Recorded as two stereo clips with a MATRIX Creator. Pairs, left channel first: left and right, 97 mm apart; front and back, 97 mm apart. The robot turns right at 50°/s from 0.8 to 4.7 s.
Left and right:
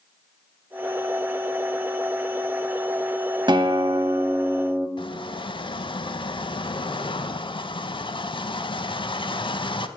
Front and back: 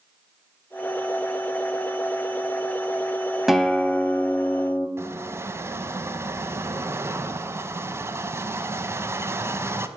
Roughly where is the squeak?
Behind left.